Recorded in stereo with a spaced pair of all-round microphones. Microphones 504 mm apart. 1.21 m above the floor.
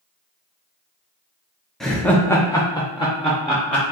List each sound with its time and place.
1.8 s laughter: centre (ahead or behind), 0.6 m; by 3.8 s 10° left (ahead or behind), 0.9 m